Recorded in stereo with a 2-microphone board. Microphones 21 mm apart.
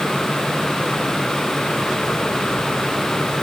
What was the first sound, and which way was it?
Only background noise.